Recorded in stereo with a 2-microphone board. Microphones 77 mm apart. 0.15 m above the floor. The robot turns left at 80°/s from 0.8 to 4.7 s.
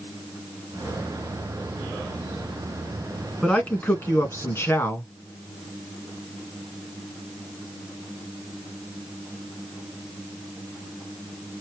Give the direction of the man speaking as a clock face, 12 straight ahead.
6 o'clock.